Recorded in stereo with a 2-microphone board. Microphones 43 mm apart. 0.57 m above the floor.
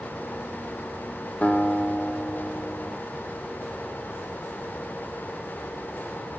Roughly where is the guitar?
Left.